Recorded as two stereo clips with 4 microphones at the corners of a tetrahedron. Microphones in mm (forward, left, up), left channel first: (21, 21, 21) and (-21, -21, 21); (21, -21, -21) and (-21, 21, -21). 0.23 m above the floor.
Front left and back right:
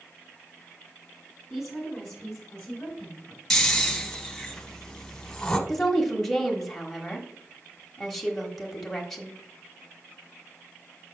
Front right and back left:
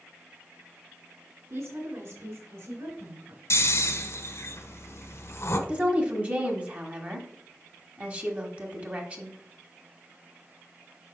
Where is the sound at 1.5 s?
140° left, 2.5 m; by 3.4 s 115° left, 3 m.